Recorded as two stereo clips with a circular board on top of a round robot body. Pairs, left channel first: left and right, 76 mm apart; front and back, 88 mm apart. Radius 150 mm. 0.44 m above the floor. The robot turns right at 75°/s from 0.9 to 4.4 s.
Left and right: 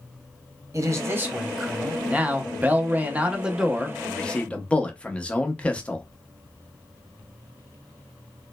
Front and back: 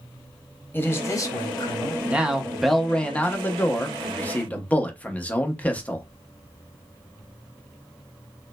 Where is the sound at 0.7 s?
55° right, 1.0 m; by 2.0 s 20° left, 1.0 m.